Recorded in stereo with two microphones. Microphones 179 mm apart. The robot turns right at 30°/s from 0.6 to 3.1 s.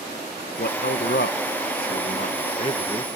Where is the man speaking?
75° left; by 3.1 s 150° left.